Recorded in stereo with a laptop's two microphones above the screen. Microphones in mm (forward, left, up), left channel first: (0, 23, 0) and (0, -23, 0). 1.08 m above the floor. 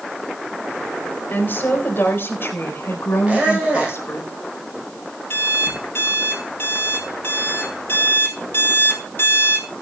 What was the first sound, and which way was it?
A woman speaking, 50° left (ahead or behind).